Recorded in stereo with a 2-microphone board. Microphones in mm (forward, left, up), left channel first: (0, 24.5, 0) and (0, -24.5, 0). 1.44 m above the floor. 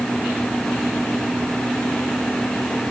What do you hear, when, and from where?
Only background noise.